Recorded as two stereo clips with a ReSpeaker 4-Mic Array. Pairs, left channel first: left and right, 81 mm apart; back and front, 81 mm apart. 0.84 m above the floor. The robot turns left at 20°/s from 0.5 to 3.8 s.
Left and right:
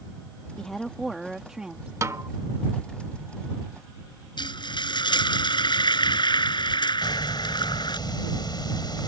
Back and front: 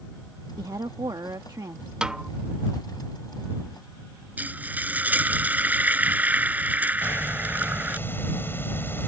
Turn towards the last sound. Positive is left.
turn(degrees=115)